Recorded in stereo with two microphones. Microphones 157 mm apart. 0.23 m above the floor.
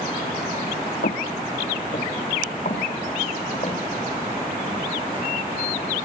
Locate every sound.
1.0 s footsteps: 75° left (ahead or behind), 0.5 m; by 3.8 s 45° left (ahead or behind), 1.8 m